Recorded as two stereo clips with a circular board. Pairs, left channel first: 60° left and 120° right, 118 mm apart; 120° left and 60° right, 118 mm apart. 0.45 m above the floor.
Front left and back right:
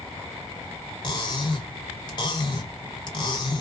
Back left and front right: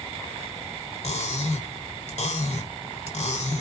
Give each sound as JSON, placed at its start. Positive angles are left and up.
{"t": 1.0, "sound": "cutlery clinking", "azimuth_deg": 110, "distance_m": 1.2}